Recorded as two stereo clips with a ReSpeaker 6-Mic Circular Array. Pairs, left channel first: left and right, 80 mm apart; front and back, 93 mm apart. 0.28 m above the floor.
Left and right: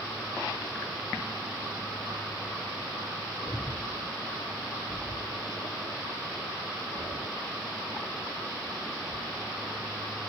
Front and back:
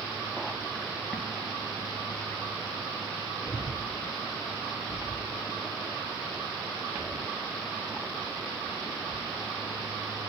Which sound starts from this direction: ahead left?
Breathing, at 3.5 s.